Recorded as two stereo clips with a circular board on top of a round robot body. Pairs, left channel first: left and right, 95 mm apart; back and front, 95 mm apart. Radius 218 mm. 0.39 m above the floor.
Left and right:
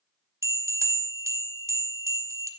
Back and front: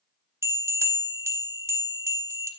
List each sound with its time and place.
0.4 s a bell: 45° right, 1.2 m